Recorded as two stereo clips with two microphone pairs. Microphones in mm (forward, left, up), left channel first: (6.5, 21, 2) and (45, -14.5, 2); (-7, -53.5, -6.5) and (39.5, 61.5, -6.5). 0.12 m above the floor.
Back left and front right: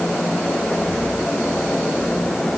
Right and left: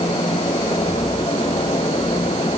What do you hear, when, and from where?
Only background noise.